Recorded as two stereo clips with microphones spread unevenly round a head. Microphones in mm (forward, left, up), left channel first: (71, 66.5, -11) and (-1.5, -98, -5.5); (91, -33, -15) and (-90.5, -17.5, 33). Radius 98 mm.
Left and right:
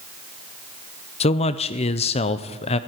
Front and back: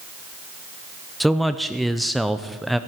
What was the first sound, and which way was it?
A man speaking, 105° left.